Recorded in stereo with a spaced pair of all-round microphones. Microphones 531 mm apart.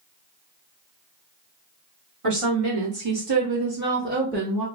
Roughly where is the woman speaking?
Right.